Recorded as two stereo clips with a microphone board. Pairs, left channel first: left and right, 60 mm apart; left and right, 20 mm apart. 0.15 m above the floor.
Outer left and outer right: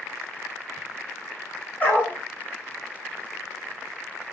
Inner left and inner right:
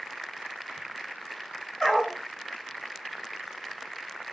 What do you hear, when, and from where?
1.8 s a dog barking: 30° left (ahead or behind), 1.4 m